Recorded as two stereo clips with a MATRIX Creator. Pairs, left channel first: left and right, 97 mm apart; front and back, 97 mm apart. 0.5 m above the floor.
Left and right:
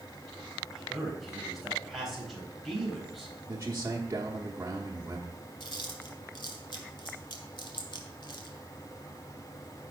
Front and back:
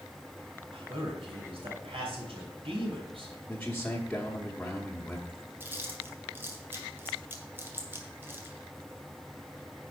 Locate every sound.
0.7 s a man speaking: straight behind, 3.5 m
3.5 s a man speaking: 70° right, 1.1 m
5.6 s chewing: 115° left, 1.7 m